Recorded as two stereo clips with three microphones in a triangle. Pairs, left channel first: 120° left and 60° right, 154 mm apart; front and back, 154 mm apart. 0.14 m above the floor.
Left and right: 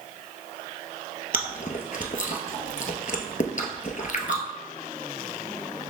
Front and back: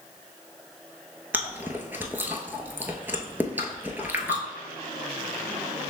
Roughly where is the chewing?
Left.